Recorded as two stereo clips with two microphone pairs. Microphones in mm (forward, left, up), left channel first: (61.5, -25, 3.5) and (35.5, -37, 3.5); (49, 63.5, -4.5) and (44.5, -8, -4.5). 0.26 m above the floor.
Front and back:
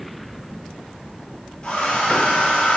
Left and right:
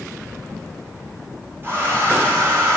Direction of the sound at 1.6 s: 35° right.